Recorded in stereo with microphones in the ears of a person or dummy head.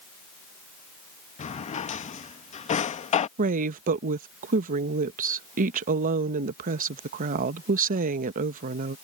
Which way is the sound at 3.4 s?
45° right (ahead or behind).